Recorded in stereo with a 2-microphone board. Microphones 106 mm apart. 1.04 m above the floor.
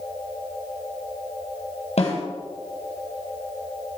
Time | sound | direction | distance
2.0 | a snare drum | 85° left | 9 m